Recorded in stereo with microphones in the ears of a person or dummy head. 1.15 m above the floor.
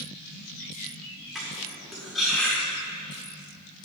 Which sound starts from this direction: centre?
Cutlery clinking, at 1.4 s.